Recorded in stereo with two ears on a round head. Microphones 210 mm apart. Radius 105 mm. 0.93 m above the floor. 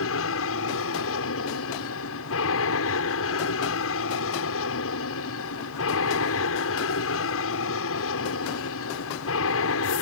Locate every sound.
0.0 s an aircraft: 65° left (ahead or behind)